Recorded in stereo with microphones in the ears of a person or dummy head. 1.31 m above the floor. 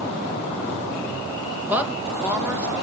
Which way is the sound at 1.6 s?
10° right (ahead or behind).